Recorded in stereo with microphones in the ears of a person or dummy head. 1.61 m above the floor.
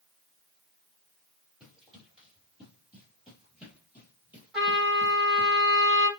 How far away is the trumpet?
About 5 m.